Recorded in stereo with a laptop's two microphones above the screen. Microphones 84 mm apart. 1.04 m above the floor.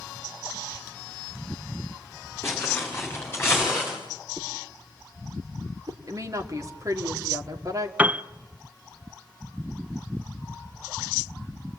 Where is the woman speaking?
45° right (ahead or behind), 2 m.